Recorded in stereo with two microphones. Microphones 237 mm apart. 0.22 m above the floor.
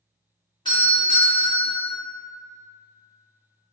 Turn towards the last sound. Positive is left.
turn(degrees=20)  # may be behind; listen again after turning